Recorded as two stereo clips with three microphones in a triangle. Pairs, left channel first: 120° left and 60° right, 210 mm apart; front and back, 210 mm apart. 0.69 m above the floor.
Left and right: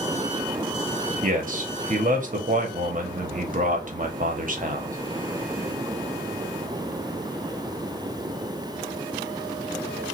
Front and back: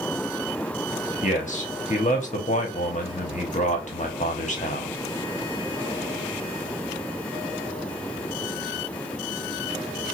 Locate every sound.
1.2 s a man speaking: 35° right, 1.0 m